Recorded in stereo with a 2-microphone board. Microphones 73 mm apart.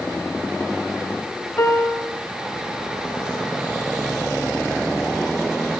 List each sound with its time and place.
1.6 s a piano: 35° left (ahead or behind), 0.7 m